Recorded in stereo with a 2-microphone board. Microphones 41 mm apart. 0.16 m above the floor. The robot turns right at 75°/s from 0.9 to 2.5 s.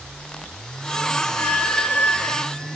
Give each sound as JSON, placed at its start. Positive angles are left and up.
{"t": 1.4, "sound": "a squeak", "azimuth_deg": 95, "distance_m": 1.5}